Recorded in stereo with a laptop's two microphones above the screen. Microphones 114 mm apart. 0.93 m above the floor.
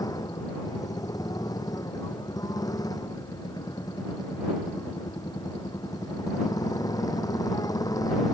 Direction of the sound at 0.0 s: 35° left (ahead or behind).